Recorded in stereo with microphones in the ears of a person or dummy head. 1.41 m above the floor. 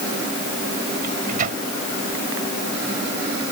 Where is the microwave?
40° right (ahead or behind).